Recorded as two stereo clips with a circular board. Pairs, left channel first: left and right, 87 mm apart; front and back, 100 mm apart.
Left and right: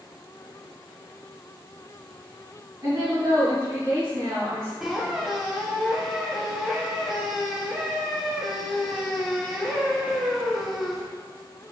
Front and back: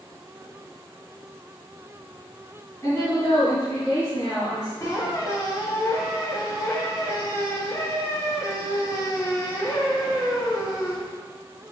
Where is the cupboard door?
I don't hear a cupboard door.